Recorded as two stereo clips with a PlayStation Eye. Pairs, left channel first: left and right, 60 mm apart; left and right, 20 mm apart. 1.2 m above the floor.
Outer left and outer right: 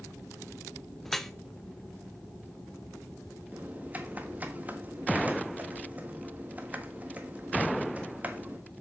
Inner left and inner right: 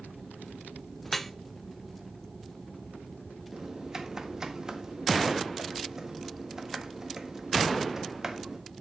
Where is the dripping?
5° left (ahead or behind), 0.7 m.